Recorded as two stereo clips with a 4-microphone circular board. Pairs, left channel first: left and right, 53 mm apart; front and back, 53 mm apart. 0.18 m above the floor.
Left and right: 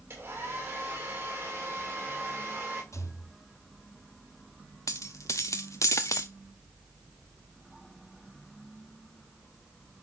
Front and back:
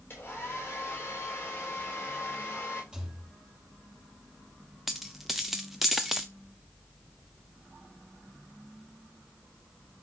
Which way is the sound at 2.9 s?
105° left.